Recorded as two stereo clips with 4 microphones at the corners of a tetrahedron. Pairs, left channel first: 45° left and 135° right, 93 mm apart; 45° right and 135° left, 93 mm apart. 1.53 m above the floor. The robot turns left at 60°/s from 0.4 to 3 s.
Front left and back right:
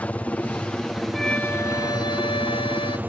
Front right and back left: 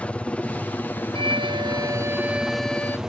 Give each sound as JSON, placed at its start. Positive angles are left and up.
{"t": 0.0, "sound": "a helicopter", "azimuth_deg": 0}
{"t": 1.1, "sound": "a violin", "azimuth_deg": 130}